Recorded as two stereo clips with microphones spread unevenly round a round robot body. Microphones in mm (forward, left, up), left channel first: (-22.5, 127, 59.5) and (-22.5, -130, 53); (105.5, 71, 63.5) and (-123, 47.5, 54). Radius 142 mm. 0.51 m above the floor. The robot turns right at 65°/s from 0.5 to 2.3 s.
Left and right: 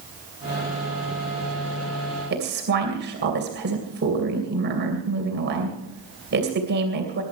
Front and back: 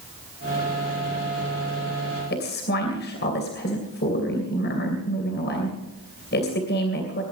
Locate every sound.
2.3 s a woman speaking: 40° right, 2.5 m